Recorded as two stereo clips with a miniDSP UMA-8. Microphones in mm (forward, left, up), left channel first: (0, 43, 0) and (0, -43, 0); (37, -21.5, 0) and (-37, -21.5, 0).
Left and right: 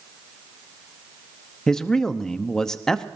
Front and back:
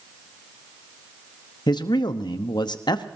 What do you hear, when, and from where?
1.7 s a man speaking: 10° left, 0.9 m